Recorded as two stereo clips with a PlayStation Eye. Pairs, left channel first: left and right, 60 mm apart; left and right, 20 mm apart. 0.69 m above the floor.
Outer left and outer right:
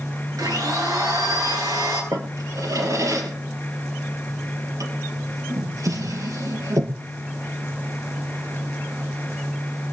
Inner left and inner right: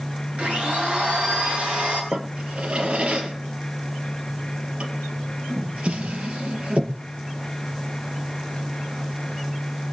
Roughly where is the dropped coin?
I don't hear a dropped coin.